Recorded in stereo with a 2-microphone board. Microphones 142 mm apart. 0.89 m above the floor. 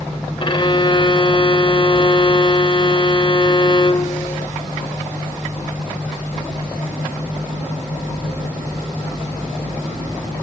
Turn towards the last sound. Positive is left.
turn(degrees=35)  # may be behind; listen again after turning